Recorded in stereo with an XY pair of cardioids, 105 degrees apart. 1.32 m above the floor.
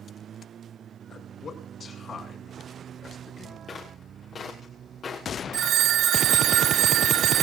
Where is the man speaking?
50° left, 6.5 m.